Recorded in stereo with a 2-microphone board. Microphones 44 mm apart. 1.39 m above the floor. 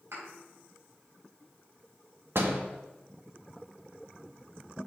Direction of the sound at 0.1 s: 80° right.